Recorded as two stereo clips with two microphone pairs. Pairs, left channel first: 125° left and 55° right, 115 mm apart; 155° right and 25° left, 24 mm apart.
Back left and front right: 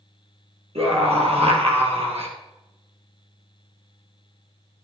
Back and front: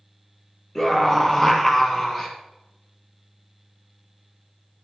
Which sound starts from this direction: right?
A scream, at 0.8 s.